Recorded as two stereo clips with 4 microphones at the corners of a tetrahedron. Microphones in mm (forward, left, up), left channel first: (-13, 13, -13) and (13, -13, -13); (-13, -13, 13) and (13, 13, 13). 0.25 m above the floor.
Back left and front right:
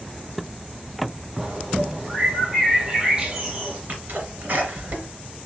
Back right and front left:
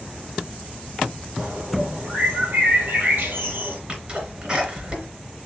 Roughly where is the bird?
Ahead.